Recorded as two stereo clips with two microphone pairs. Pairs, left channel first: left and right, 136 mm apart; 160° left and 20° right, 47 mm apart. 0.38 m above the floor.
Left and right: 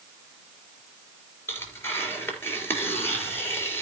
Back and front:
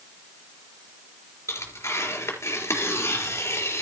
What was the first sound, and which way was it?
Tearing paper, 160° left.